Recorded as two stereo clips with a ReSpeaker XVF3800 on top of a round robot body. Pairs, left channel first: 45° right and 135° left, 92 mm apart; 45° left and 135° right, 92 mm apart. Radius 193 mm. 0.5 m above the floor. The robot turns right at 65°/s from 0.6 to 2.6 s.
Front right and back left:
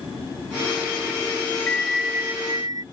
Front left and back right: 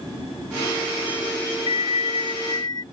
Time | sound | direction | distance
1.7 | a bell | 30° left | ?